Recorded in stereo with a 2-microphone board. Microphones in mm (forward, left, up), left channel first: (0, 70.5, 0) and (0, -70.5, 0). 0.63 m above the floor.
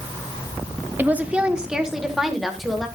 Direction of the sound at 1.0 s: 15° right (ahead or behind).